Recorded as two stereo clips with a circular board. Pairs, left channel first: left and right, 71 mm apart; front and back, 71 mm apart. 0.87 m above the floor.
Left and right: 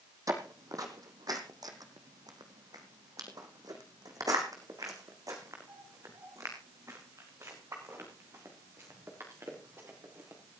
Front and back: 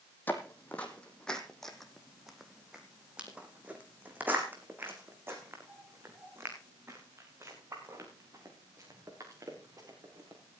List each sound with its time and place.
0.3 s footsteps: 60° right, 1.9 m; by 10.6 s 140° right, 5.5 m